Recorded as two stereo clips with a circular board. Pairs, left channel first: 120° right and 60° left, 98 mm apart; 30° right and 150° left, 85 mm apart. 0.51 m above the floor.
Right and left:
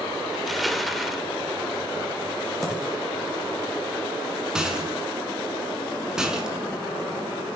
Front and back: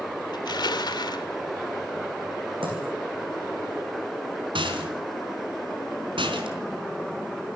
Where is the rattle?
145° left, 4 m.